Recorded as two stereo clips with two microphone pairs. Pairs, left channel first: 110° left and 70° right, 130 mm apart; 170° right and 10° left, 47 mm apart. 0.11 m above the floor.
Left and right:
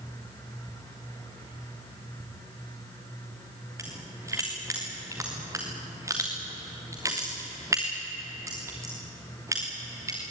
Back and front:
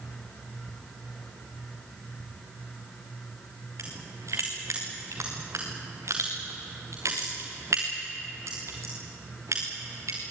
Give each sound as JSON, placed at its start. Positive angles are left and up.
{"t": 3.8, "sound": "crushing", "azimuth_deg": 0, "distance_m": 5.0}